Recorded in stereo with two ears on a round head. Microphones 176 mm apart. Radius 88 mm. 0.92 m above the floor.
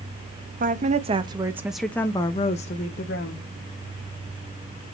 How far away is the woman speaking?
About 1.1 m.